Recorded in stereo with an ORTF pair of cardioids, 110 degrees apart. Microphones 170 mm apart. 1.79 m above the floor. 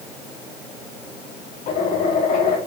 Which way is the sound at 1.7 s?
55° left.